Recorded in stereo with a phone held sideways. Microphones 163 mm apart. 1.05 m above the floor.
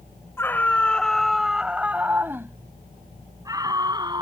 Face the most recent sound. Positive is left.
turn(degrees=-25)  # may be behind; listen again after turning